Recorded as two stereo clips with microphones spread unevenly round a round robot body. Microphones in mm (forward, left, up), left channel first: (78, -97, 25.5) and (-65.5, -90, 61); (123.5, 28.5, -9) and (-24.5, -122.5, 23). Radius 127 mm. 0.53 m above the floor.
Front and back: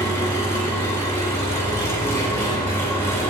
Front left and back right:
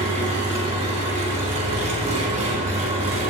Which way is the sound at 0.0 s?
75° right.